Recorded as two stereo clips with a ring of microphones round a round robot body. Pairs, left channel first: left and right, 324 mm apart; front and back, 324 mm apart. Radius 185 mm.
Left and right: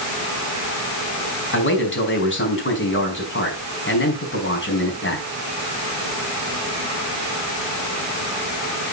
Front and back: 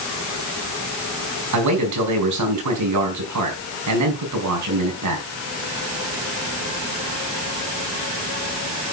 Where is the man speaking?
145° left, 5 m.